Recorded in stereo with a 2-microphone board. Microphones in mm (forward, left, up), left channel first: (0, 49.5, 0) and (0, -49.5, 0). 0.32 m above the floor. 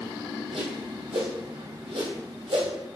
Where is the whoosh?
75° right (ahead or behind), 2 m.